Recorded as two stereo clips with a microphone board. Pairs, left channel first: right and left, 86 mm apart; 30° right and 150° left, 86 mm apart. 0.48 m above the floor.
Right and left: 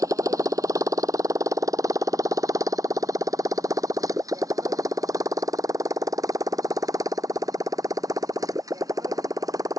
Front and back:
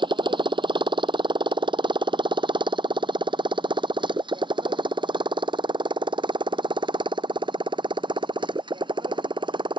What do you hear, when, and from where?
0.0 s a motorcycle: 135° left